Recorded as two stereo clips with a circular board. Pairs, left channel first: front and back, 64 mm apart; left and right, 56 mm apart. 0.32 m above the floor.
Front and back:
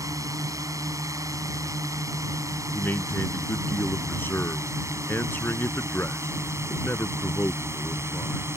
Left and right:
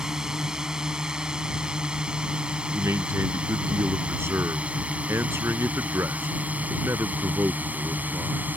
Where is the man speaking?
55° right.